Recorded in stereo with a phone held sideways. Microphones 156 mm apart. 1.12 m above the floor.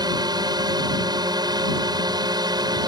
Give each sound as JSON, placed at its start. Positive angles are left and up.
{"t": 0.0, "sound": "a drone", "side_deg": -25}